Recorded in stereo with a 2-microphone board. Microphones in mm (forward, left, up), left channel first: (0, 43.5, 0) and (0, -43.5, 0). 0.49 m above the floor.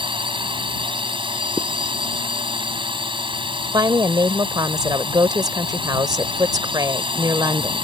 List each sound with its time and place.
0.0 s a drone: 70° right (ahead or behind)
1.6 s a zipper: 20° right (ahead or behind)
3.7 s a woman speaking: 50° right (ahead or behind)